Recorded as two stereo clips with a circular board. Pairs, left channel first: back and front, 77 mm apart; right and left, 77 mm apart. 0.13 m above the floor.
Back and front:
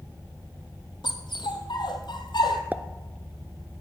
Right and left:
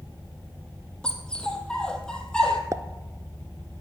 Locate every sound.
1.0 s a dog barking: 170° right, 1.7 m
2.7 s a pop: 65° left, 0.5 m